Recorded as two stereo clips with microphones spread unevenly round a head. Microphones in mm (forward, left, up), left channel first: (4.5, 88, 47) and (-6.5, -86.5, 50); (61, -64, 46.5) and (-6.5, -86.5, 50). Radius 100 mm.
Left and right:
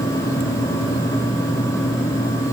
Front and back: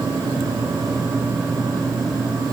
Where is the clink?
I don't hear a clink.